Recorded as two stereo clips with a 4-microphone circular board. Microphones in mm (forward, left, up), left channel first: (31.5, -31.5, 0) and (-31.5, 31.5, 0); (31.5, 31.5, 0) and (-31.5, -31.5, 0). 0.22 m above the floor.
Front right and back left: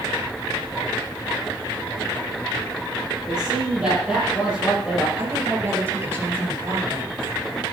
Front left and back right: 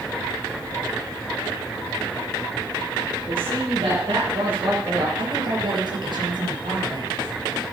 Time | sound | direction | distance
3.3 | a man speaking | 145° right | 6.5 m
5.2 | a woman speaking | 160° right | 4 m